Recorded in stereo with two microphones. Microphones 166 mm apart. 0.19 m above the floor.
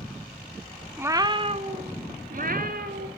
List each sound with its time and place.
1.0 s a cat meowing: 10° right (ahead or behind), 0.9 m; by 3.1 s 65° right (ahead or behind), 2.5 m